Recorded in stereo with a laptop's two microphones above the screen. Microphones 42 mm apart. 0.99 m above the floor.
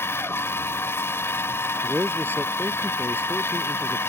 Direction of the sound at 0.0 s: 85° left.